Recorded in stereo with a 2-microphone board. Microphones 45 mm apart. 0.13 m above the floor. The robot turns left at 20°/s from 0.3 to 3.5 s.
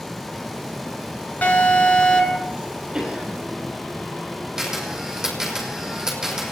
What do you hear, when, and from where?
1.4 s an alarm: 40° left (ahead or behind), 3 m; by 2.5 s 25° left (ahead or behind), 3 m
2.9 s a cough: 20° right (ahead or behind), 5.5 m; by 3.4 s 30° right (ahead or behind), 5.5 m
4.6 s a camera shutter: 15° right (ahead or behind), 5 m